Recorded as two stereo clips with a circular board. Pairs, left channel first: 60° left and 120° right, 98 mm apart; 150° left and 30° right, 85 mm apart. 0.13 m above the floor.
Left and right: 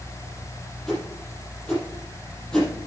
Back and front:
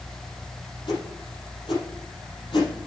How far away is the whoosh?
About 4.5 m.